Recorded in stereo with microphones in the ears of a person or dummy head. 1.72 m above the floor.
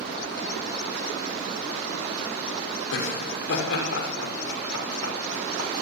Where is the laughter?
75° left (ahead or behind), 6 m; by 5.7 s 90° left, 7.5 m.